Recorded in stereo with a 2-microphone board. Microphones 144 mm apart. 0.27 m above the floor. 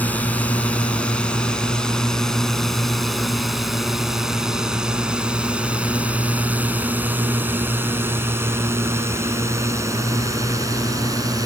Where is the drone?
10° left (ahead or behind); by 11.5 s 25° right (ahead or behind).